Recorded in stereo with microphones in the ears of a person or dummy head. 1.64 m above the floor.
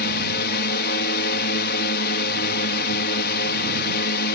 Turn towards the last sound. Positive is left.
turn(degrees=50)  # may be behind; listen again after turning